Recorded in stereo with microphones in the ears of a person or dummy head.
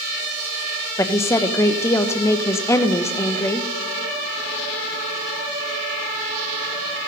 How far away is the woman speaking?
About 0.6 m.